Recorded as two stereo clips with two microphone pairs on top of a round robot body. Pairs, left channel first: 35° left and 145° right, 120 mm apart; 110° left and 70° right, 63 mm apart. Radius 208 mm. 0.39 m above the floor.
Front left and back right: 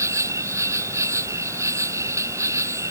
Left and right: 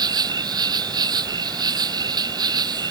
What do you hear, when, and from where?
0.0 s an insect: 75° right